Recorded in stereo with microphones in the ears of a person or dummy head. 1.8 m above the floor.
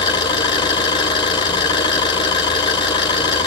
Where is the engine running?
25° left (ahead or behind), 1.8 m.